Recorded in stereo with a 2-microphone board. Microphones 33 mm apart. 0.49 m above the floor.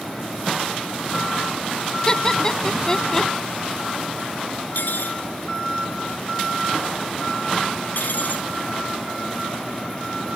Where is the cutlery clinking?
70° left (ahead or behind).